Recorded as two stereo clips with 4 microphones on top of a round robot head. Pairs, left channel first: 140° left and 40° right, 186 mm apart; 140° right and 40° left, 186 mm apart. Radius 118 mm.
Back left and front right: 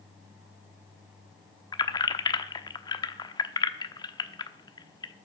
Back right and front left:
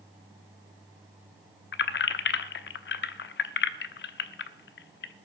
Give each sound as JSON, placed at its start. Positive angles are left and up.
{"t": 1.7, "sound": "keys jangling", "azimuth_deg": -155, "distance_m": 1.0}